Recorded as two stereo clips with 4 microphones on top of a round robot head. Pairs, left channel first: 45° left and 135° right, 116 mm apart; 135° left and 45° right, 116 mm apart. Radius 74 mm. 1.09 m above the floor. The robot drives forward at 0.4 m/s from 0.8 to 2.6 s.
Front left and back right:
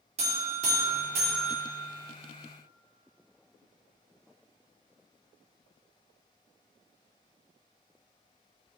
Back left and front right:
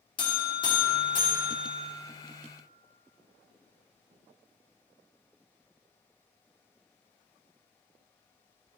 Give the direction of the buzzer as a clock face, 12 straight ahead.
6 o'clock.